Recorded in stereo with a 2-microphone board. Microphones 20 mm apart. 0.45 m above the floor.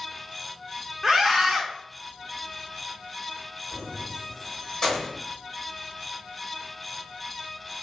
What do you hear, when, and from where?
1.0 s a scream: 5° right (ahead or behind), 0.8 m
3.7 s keys jangling: 35° left (ahead or behind), 1.5 m